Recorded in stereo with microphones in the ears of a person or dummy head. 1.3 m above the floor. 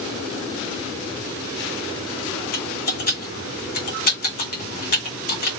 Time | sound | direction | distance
2.5 | typing on a keyboard | 45° left (ahead or behind) | 1.3 m